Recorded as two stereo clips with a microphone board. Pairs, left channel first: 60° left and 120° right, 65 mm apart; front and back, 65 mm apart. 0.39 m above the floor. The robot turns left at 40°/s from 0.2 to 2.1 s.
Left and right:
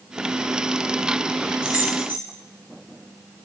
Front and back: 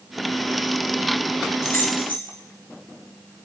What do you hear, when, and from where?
1.6 s keys jangling: 45° right, 5.5 m; by 2.2 s 65° right, 5.5 m